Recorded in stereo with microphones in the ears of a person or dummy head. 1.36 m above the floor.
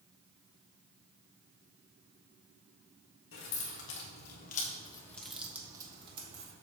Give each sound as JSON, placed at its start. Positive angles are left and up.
{"t": 3.3, "sound": "keys jangling", "side_deg": 80, "distance_m": 2.0}